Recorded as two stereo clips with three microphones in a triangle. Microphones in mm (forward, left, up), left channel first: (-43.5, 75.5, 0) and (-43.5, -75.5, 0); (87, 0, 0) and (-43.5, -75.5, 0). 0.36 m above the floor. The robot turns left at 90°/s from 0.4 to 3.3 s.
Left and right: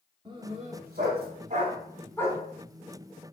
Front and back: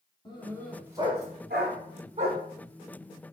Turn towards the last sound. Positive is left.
turn(degrees=70)